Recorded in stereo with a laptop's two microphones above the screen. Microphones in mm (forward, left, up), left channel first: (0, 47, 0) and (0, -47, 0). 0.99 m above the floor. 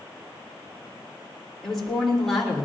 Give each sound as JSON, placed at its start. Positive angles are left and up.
{"t": 1.6, "sound": "a woman speaking", "side_deg": 5, "distance_m": 3.0}